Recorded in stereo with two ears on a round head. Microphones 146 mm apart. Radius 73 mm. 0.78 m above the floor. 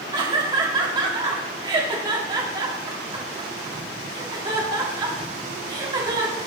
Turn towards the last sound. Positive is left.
turn(degrees=-25)  # may be behind; listen again after turning